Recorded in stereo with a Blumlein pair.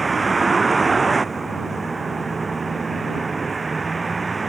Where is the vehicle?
15° right.